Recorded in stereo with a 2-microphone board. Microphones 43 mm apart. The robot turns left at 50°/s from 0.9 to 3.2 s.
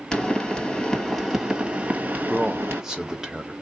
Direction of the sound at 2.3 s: 10° right (ahead or behind).